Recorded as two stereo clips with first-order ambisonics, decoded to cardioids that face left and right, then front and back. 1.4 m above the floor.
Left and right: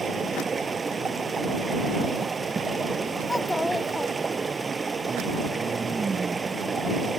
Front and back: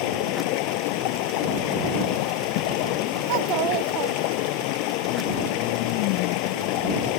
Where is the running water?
15° right.